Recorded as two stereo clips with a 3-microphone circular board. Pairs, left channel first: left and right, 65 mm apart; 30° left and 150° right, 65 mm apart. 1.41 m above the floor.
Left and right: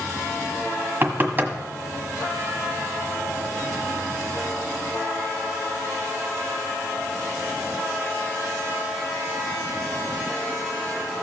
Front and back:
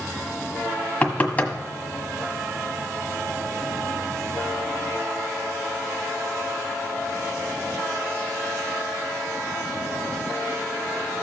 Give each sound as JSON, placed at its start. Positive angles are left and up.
{"t": 1.0, "sound": "knocking", "azimuth_deg": -35, "distance_m": 1.3}